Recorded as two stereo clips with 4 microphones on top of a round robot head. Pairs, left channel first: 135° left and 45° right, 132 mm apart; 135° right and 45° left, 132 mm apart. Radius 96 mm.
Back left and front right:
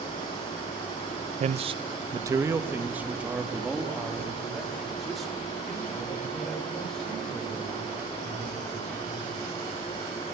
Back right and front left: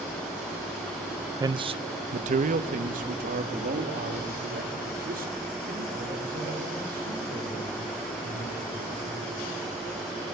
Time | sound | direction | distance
1.4 | a man speaking | 15° right | 0.6 m